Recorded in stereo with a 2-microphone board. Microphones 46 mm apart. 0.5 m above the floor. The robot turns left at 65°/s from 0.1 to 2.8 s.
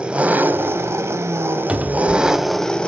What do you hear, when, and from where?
0.0 s an engine running: 20° right, 0.8 m; by 2.9 s 165° left, 0.8 m
1.7 s a cupboard door: 35° right, 0.7 m; by 2.5 s 90° right, 0.7 m